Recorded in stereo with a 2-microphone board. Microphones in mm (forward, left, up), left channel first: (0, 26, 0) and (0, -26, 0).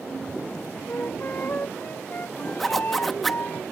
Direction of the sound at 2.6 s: 5° left (ahead or behind).